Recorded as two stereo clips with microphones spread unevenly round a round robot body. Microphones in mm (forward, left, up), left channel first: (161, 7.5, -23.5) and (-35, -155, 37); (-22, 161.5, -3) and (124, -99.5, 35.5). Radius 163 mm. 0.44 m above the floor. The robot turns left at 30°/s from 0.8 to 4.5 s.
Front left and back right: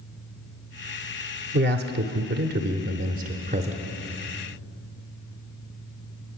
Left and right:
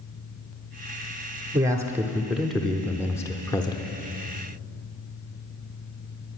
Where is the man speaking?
140° right, 0.7 m; by 4.0 s 145° left, 0.7 m.